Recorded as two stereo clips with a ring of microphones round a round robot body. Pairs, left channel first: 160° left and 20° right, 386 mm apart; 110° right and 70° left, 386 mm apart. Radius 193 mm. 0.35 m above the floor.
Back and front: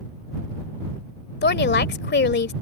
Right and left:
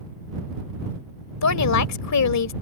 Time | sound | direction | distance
1.4 | a woman speaking | 145° right | ?